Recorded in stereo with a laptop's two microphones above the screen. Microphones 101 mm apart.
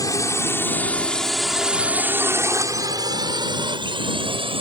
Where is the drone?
30° left (ahead or behind); by 4.6 s 55° right (ahead or behind).